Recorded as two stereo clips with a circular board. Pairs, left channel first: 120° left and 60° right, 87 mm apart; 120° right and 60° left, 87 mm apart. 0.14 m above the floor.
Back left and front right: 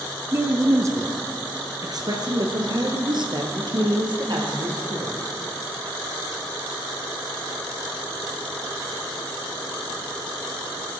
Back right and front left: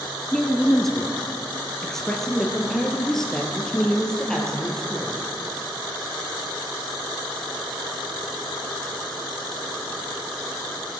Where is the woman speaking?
35° right, 1.3 m.